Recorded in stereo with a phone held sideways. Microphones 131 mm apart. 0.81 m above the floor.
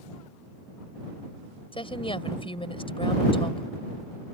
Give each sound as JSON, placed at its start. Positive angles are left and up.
{"t": 1.7, "sound": "a woman speaking", "side_deg": 45}